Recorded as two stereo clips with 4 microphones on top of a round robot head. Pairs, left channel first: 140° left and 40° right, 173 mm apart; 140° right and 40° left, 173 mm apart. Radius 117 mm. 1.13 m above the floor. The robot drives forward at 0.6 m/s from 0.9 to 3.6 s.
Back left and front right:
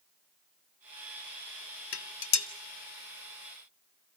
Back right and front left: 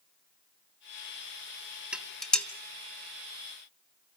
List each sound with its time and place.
1.9 s dishes clattering: 125° left, 1.0 m; by 2.5 s 140° left, 1.2 m